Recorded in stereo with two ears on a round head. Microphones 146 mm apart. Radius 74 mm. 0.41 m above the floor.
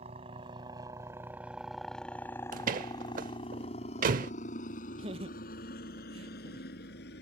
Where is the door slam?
50° right (ahead or behind).